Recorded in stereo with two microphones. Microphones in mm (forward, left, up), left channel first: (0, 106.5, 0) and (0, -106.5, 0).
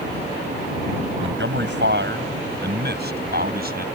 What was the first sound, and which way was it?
A man speaking, 65° right (ahead or behind).